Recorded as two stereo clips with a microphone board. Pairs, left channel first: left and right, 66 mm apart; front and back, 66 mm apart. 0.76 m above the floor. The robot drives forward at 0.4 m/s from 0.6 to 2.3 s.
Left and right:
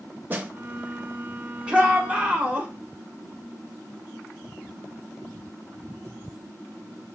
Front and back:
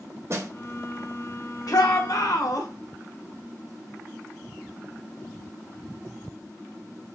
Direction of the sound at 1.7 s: 15° right.